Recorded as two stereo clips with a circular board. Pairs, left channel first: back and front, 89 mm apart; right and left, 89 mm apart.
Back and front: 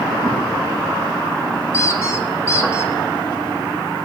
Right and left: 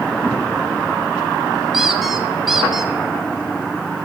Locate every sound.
1.7 s a squeak: 175° left, 0.6 m